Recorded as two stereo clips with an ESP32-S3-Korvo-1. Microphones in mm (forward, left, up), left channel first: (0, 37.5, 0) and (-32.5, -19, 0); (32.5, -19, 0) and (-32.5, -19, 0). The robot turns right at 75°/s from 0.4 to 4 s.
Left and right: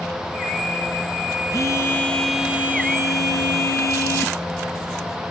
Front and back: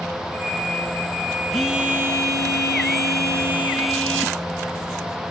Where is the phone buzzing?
85° left, 3 m; by 4.4 s 85° right, 3 m.